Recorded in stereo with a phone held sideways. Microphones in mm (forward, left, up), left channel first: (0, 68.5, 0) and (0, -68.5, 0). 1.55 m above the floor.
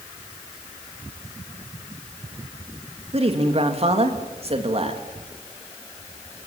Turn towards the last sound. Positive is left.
turn(degrees=-45)  # may be behind; listen again after turning